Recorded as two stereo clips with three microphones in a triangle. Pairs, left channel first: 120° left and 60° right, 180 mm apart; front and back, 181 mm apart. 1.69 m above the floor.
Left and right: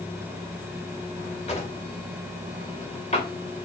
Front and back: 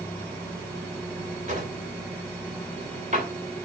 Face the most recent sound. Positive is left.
turn(degrees=155)